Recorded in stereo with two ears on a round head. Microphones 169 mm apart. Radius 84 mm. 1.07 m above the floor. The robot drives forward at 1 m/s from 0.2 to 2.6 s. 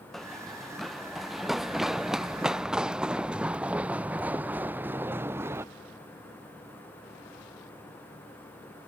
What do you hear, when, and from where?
0.1 s running footsteps: centre (ahead or behind); by 5.7 s 15° right (ahead or behind)